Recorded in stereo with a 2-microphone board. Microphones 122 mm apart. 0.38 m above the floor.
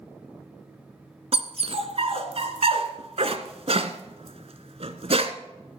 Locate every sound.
1.3 s a dog barking: 60° right (ahead or behind), 1.2 m